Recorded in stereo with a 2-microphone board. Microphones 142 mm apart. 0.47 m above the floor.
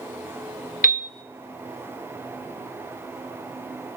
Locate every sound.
0.8 s a piano: 80° left, 0.7 m